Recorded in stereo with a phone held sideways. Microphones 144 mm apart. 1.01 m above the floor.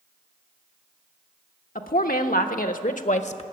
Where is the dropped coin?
I don't hear a dropped coin.